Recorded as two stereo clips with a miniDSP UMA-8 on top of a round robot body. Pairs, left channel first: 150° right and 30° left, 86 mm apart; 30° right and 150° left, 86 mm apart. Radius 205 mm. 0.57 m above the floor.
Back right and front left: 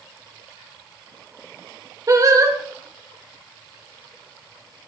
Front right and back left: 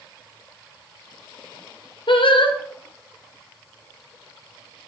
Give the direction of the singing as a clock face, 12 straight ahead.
1 o'clock.